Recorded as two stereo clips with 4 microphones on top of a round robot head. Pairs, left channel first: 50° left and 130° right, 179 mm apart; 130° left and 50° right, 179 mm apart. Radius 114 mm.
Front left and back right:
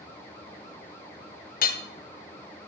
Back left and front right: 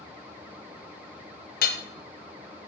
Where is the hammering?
90° left, 1.7 m.